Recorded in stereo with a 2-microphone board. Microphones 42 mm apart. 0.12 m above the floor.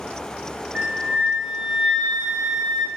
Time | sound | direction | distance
0.8 | a flute | 30° right (ahead or behind) | 0.9 m